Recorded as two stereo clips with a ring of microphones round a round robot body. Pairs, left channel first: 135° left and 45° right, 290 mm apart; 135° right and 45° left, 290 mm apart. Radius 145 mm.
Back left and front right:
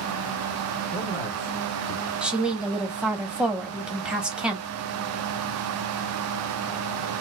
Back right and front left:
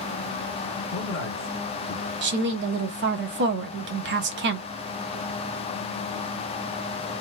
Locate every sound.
0.9 s a man speaking: 155° right, 1.8 m
2.2 s a woman speaking: 40° left, 0.8 m